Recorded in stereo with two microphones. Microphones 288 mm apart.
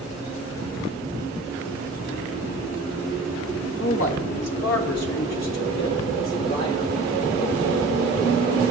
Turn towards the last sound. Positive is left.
turn(degrees=65)  # may be behind; listen again after turning